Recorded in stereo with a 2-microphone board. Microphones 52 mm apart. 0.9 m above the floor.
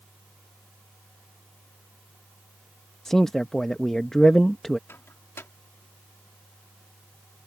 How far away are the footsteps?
No footsteps in this recording.